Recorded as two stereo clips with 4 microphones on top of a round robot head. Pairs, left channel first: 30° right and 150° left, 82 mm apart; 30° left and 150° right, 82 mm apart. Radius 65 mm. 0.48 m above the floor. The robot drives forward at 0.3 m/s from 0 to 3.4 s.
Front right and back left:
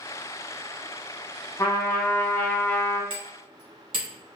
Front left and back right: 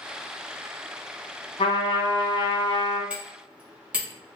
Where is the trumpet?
25° left, 1.2 m; by 3.0 s 40° left, 0.8 m.